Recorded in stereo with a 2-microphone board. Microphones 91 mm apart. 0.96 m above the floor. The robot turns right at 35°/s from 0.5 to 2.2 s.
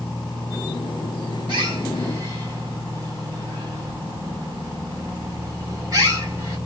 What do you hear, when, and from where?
1.5 s a bird: 55° right (ahead or behind), 1.4 m; by 6.6 s 35° right (ahead or behind), 1.4 m